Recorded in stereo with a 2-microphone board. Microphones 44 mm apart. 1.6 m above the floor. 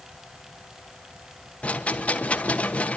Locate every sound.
1.6 s a rattle: 30° left (ahead or behind), 1.4 m